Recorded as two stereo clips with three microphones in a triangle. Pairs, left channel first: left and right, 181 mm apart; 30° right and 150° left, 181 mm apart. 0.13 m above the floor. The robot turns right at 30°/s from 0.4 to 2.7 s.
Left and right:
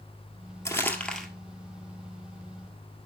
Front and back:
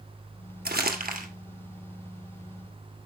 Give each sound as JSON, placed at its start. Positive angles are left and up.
{"t": 0.7, "sound": "crumpling", "azimuth_deg": 160, "distance_m": 1.7}